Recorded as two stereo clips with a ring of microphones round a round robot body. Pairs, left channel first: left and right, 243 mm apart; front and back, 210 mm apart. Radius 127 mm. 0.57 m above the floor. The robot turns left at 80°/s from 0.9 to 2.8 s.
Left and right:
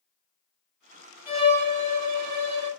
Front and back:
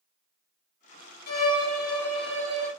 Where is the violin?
5° right, 1.7 m; by 2.7 s 120° right, 1.7 m.